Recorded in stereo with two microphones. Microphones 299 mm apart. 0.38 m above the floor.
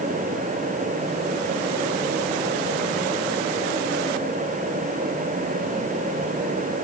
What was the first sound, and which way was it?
Only background noise.